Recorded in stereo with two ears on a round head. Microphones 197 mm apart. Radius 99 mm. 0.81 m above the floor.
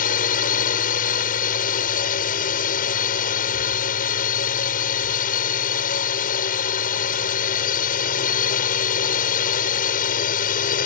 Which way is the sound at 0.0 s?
40° left (ahead or behind).